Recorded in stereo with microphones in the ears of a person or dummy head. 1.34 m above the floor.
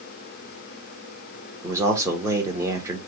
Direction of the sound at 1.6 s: 15° right (ahead or behind).